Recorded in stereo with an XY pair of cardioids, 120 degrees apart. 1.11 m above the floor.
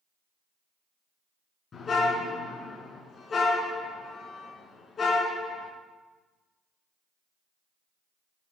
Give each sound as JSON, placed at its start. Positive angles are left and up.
{"t": 1.7, "sound": "a car horn", "azimuth_deg": 35, "distance_m": 5.5}